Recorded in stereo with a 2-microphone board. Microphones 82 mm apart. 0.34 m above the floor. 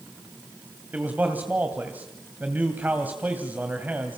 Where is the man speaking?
20° right (ahead or behind), 2 m.